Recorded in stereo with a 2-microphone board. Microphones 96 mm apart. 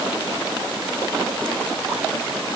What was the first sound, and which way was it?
Only background noise.